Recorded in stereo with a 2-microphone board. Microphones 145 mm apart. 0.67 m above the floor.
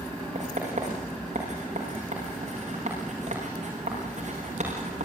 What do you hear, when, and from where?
0.3 s writing: 55° right (ahead or behind), 8 m